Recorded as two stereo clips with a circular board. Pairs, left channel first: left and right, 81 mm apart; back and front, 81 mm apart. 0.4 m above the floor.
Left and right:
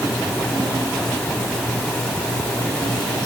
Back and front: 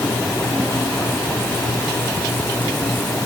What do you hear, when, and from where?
Only background noise.